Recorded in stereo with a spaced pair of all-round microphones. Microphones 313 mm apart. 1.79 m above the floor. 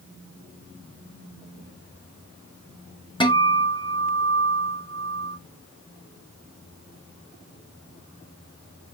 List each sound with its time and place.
3.2 s a guitar: 15° left (ahead or behind), 1.0 m